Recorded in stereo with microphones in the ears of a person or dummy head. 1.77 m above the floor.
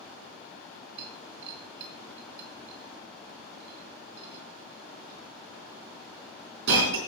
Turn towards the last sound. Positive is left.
turn(degrees=-70)  # may be behind; listen again after turning